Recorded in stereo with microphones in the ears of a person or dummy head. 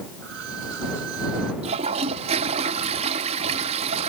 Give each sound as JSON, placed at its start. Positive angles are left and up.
{"t": 0.2, "sound": "a violin", "side_deg": -65}
{"t": 1.6, "sound": "a toilet flushing", "side_deg": -35}